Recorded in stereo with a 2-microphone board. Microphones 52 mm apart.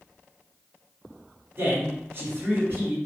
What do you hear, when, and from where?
1.6 s a man speaking: 40° right (ahead or behind), 1.7 m